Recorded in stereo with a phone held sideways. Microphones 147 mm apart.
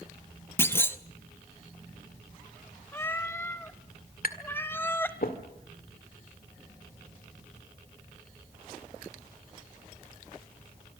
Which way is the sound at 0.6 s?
15° left (ahead or behind).